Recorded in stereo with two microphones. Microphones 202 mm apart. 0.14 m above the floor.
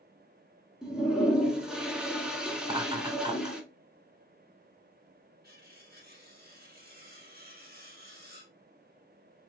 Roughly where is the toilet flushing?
Centre.